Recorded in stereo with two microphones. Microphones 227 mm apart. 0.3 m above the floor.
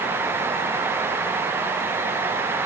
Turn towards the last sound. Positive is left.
No sound to turn to.